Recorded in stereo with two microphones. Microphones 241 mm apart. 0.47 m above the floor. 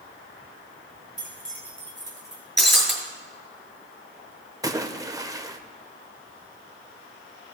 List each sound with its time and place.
1.2 s keys jangling: 35° right (ahead or behind), 2 m; by 2.4 s 30° right (ahead or behind), 3 m
2.6 s breaking glass: centre (ahead or behind), 2.5 m
4.6 s a splash: 15° right (ahead or behind), 0.5 m